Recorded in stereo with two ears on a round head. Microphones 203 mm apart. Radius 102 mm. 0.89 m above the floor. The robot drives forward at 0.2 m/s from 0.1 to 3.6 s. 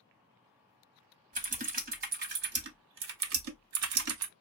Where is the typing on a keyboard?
35° right (ahead or behind), 0.8 m; by 4.3 s 65° right (ahead or behind), 0.5 m.